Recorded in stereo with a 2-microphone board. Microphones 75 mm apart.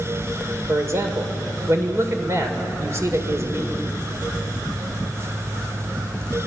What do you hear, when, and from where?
0.7 s a man speaking: 40° right (ahead or behind), 2.5 m